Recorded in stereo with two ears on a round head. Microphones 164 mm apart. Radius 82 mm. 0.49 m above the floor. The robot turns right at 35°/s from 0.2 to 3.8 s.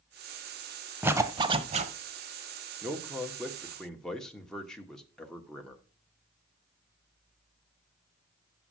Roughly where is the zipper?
Behind.